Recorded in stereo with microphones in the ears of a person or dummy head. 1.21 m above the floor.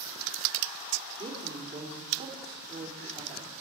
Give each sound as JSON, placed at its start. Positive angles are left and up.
{"t": 1.2, "sound": "a woman speaking", "side_deg": -25, "distance_m": 3.5}